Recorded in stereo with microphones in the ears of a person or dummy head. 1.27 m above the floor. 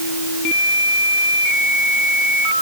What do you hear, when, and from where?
Only background noise.